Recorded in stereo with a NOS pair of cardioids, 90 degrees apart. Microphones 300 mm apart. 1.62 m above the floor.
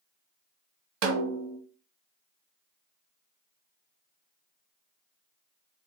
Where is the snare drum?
65° right, 1.4 m.